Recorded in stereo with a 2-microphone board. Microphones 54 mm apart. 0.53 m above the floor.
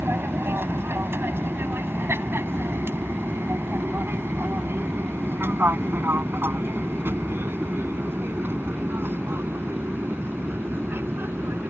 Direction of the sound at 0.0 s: 45° right (ahead or behind).